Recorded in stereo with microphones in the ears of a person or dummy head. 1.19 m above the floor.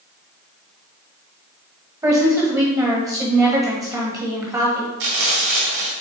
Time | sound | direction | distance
2.0 | a woman speaking | 15° right (ahead or behind) | 1.3 m
5.0 | frying | 65° right (ahead or behind) | 2.0 m